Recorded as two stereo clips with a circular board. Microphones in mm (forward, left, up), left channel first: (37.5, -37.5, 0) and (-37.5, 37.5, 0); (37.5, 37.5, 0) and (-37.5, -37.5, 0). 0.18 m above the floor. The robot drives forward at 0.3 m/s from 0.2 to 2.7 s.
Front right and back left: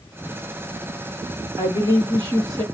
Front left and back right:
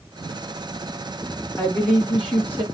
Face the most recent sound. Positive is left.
turn(degrees=135)